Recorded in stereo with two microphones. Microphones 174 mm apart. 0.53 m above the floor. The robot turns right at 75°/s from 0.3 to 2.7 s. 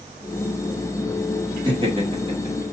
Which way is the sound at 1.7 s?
25° right (ahead or behind).